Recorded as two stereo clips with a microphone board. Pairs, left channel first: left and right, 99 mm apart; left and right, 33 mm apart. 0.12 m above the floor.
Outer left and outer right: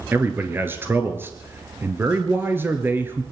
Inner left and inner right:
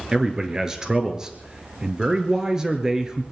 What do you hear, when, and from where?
0.1 s a man speaking: 20° right (ahead or behind), 2.0 m